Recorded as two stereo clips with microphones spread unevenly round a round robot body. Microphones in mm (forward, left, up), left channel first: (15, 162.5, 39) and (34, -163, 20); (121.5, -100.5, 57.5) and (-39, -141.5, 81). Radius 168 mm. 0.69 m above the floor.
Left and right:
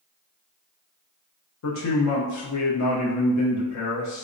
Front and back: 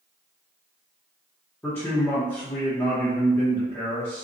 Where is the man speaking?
80° left, 0.7 m.